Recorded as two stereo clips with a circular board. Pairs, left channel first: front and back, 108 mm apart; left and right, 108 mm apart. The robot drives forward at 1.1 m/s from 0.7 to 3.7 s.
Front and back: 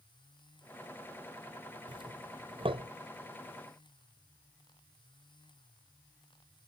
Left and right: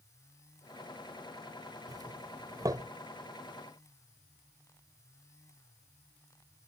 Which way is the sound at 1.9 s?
140° right.